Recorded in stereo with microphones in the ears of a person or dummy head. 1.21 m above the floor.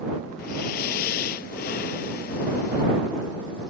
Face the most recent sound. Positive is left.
turn(degrees=40)  # may be behind; listen again after turning